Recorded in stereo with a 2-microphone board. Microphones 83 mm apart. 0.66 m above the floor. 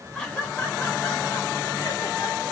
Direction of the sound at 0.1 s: 10° left (ahead or behind).